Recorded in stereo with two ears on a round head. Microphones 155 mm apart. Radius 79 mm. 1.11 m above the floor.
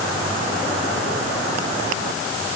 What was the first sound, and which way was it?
Only background noise.